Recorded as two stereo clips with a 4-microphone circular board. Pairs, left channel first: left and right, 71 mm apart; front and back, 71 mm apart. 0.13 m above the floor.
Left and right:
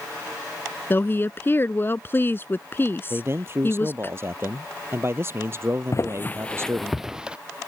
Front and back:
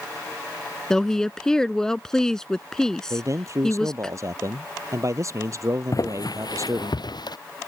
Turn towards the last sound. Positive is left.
turn(degrees=-15)